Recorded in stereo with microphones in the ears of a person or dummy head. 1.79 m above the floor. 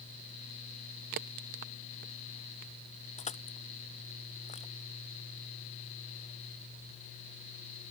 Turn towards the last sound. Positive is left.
turn(degrees=30)  # may be behind; listen again after turning